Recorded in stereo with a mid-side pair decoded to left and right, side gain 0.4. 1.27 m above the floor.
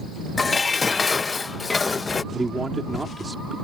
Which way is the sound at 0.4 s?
35° left.